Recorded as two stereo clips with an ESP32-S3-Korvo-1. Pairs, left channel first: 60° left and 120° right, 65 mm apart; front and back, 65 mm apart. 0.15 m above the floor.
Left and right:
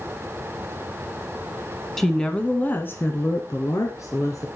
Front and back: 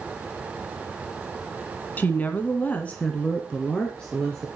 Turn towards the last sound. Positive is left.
turn(degrees=75)